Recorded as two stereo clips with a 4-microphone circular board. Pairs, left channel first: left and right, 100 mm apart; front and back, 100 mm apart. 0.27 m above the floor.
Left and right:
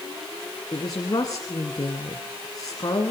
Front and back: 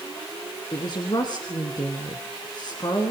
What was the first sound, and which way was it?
A woman speaking, 40° left.